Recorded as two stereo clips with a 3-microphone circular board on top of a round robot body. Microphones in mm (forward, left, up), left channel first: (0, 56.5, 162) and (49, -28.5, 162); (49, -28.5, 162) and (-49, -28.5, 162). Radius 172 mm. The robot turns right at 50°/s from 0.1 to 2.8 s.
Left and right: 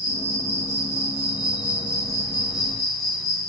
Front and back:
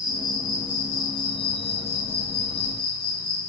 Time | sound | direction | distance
0.0 | an insect | 100° right | 1.9 m